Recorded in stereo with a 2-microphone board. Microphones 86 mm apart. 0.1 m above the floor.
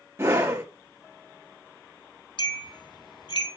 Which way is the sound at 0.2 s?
30° right (ahead or behind).